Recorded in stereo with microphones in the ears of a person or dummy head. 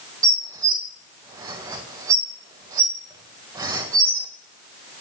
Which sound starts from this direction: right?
Dishes clattering, at 0.2 s.